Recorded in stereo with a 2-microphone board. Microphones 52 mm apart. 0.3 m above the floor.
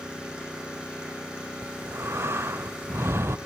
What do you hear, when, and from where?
0.0 s an engine running: 20° right (ahead or behind), 8 m
1.6 s breathing: 60° right (ahead or behind), 0.6 m